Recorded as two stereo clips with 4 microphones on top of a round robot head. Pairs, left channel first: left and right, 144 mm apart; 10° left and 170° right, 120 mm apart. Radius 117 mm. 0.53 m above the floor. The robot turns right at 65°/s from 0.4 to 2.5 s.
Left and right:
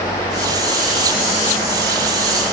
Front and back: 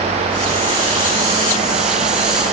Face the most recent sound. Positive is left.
No sound to turn to.